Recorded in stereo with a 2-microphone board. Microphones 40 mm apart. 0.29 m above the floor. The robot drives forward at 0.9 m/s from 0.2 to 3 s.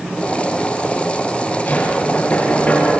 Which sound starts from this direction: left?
Knocking, at 1.7 s.